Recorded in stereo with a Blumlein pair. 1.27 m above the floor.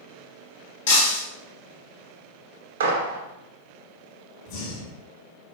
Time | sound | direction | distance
0.9 | breaking glass | 60° left | 1.5 m
2.8 | a gunshot | 60° right | 0.8 m
4.5 | breathing | 40° left | 1.5 m